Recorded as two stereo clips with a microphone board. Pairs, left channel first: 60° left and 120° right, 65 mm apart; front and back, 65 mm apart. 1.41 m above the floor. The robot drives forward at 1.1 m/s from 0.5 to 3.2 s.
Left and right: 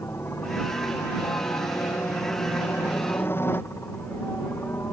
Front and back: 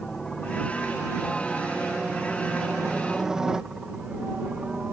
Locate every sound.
0.0 s a helicopter: 75° left; by 4.9 s 105° left